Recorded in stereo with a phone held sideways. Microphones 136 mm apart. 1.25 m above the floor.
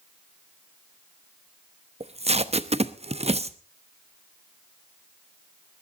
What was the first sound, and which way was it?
Tape being pulled, 50° right (ahead or behind).